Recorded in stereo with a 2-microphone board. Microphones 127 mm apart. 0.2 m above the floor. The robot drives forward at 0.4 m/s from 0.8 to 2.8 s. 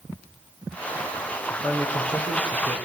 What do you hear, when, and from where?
1.5 s a man speaking: 5° left (ahead or behind), 6.5 m; by 2.8 s 10° left (ahead or behind), 6 m